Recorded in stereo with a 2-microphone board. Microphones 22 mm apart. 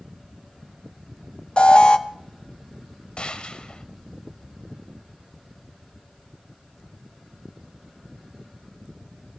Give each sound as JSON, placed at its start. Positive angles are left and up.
{"t": 1.6, "sound": "an alarm", "side_deg": 50, "distance_m": 0.8}
{"t": 3.2, "sound": "a gunshot", "side_deg": 45, "distance_m": 1.2}